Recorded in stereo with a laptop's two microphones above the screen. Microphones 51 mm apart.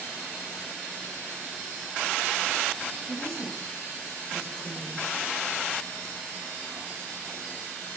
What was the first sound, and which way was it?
A woman speaking, 65° right (ahead or behind).